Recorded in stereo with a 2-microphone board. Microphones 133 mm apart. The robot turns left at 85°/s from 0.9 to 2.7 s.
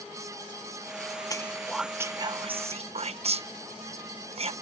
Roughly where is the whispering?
Left.